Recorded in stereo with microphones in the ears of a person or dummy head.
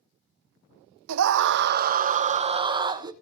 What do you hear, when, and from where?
1.1 s a scream: 70° right (ahead or behind), 0.8 m; by 3.1 s 15° right (ahead or behind), 1.3 m